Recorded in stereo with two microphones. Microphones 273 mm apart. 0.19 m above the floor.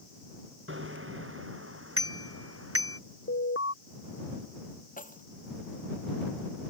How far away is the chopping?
I don't hear chopping.